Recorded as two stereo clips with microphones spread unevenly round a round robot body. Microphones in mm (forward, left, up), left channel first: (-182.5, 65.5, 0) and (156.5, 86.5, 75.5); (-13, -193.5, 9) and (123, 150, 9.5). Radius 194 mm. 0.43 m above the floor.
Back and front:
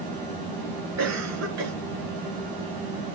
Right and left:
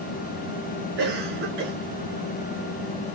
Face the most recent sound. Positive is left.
turn(degrees=50)